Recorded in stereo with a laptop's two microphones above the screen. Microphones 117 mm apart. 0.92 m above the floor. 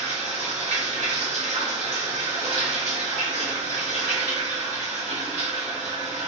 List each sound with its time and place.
0.0 s running water: 80° right, 1.1 m